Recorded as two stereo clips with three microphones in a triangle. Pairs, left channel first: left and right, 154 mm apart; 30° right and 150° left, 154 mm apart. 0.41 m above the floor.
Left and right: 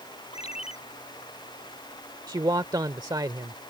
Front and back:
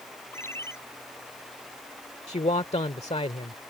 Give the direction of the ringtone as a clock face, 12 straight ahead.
11 o'clock.